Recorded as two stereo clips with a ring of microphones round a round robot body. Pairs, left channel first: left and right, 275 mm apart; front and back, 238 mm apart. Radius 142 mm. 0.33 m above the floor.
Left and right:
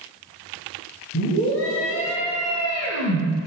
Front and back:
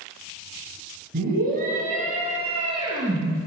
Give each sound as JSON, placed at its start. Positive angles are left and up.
{"t": 1.1, "sound": "a scream", "azimuth_deg": 135, "distance_m": 3.5}